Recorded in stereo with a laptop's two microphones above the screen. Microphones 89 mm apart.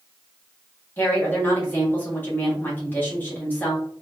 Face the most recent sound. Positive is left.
turn(degrees=20)  # may be behind; listen again after turning